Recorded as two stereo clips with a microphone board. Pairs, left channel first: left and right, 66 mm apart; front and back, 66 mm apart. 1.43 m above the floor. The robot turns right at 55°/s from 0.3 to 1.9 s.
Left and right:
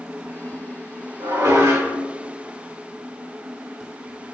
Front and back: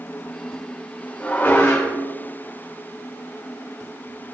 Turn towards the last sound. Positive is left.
turn(degrees=-40)